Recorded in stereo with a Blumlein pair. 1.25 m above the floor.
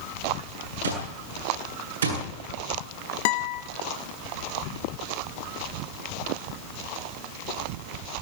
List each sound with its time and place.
0.8 s an alarm clock: 70° right, 9 m
3.2 s a guitar: 50° left, 1.1 m